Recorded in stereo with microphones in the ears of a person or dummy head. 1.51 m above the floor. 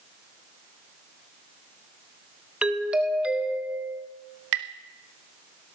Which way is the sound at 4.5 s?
65° right (ahead or behind).